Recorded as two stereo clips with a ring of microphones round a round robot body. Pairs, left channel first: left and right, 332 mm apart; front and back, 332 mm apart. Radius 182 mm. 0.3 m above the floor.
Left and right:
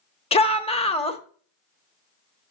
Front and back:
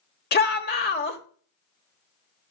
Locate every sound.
0.3 s a shout: 30° left, 1.0 m